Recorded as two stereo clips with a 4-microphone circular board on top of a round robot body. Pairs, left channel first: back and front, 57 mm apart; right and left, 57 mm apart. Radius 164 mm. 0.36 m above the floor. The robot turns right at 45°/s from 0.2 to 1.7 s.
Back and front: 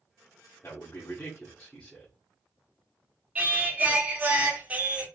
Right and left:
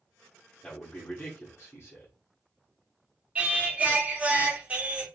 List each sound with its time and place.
0.6 s a man speaking: 160° right, 1.8 m; by 2.1 s 115° right, 1.8 m
3.4 s singing: 40° left, 1.5 m